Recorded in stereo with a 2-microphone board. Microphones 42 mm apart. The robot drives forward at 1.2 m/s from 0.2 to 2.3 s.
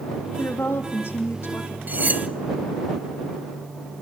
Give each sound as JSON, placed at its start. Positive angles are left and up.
{"t": 0.3, "sound": "a woman speaking", "side_deg": 70, "distance_m": 5.0}
{"t": 1.9, "sound": "cutlery clinking", "side_deg": -45, "distance_m": 1.0}